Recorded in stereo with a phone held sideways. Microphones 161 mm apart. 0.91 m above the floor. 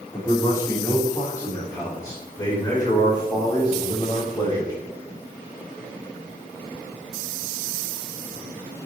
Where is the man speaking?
15° left (ahead or behind), 2.5 m; by 4.7 s 25° left (ahead or behind), 5.5 m.